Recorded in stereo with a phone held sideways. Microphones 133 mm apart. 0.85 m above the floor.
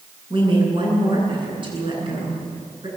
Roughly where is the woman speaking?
Right.